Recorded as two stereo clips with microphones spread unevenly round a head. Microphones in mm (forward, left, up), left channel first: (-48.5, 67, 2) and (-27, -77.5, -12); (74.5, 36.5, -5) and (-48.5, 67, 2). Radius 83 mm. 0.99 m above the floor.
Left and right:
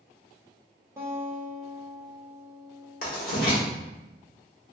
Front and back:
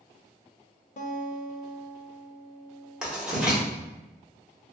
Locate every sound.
1.0 s a guitar: 10° right, 0.6 m
3.0 s writing: 85° left, 1.2 m